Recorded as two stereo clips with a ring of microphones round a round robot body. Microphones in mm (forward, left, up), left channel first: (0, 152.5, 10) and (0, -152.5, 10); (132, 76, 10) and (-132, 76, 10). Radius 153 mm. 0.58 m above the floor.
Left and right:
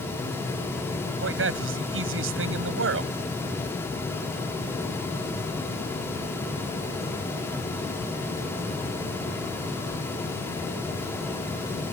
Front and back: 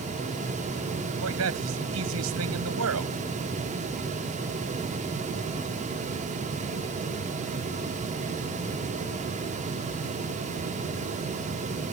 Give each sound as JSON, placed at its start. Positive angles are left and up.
{"t": 1.2, "sound": "a man speaking", "azimuth_deg": -140}